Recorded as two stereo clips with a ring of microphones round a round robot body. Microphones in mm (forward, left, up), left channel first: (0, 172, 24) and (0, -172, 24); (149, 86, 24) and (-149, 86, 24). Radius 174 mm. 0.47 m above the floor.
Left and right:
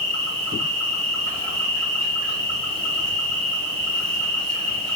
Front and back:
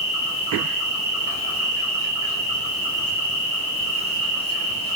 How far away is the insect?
About 1.9 m.